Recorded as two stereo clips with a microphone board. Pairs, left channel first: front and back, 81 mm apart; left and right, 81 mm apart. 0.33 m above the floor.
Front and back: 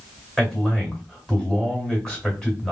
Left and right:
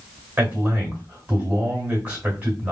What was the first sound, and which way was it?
A man speaking, 65° right.